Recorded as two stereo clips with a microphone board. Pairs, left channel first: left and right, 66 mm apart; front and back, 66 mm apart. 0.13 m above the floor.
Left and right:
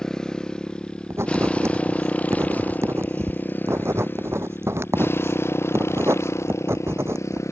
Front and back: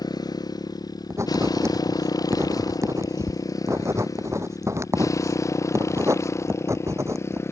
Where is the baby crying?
No baby crying in this recording.